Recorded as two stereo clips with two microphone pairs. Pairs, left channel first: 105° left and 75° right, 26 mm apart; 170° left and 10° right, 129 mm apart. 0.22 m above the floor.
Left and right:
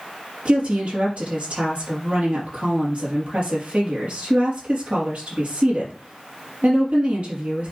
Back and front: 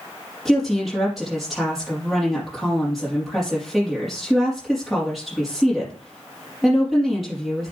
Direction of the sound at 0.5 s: 100° right.